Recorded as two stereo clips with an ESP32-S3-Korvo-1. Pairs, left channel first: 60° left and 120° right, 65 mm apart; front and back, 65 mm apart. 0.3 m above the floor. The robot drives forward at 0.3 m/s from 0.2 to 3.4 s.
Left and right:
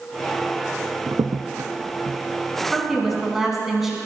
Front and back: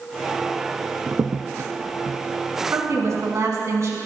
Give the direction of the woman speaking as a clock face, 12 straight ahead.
7 o'clock.